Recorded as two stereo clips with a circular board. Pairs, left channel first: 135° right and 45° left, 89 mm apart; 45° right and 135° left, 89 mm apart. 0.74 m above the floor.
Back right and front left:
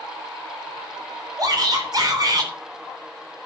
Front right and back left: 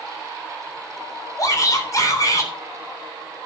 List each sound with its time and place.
1.4 s a shout: 5° left, 3.5 m